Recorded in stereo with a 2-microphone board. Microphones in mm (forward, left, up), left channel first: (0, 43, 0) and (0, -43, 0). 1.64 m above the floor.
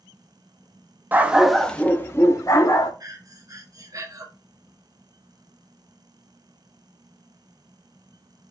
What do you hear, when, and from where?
1.1 s a dog barking: 20° right (ahead or behind), 1.0 m; by 2.9 s 50° left (ahead or behind), 1.8 m
3.0 s breathing: 45° right (ahead or behind), 1.4 m